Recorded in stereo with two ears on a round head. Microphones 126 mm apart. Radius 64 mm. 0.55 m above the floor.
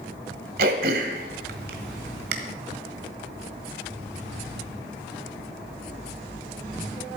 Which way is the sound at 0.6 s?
80° right.